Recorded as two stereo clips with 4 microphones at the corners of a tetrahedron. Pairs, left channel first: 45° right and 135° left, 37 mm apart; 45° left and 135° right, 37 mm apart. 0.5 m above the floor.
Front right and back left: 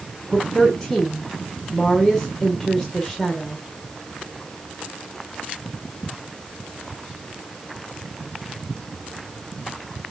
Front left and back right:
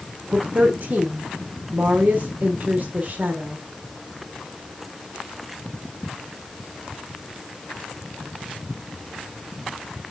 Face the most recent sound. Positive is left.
turn(degrees=-125)